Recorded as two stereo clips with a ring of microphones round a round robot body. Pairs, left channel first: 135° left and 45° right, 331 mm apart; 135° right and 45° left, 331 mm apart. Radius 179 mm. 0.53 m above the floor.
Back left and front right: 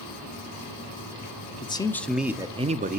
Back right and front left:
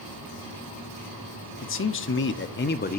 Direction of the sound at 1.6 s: 160° right.